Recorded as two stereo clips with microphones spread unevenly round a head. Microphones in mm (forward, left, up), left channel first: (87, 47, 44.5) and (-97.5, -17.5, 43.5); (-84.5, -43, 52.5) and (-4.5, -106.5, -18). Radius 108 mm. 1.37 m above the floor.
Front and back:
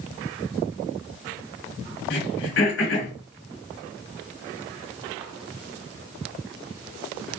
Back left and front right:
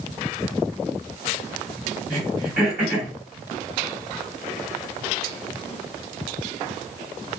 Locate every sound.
2.1 s throat clearing: 50° left, 2.5 m